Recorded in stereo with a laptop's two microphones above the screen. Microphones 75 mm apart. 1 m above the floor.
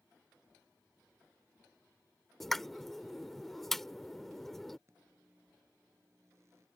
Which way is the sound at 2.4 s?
Centre (ahead or behind).